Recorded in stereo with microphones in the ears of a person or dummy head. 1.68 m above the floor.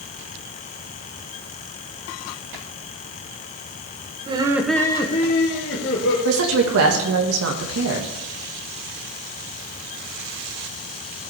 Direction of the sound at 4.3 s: 30° right (ahead or behind).